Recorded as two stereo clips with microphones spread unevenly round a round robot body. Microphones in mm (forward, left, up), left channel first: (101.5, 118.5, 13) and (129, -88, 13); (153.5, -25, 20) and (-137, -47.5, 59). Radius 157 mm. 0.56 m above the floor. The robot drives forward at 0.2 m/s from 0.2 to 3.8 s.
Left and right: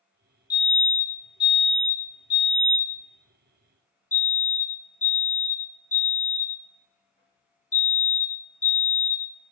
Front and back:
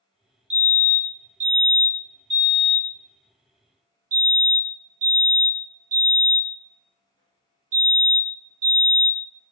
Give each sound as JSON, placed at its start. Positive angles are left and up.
{"t": 0.5, "sound": "a fire alarm", "azimuth_deg": 135, "distance_m": 1.6}